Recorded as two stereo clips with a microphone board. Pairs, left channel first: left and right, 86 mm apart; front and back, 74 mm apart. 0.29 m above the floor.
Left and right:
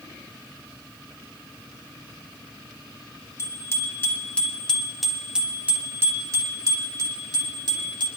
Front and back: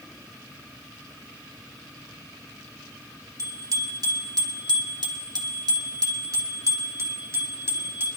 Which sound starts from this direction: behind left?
A bicycle bell, at 3.4 s.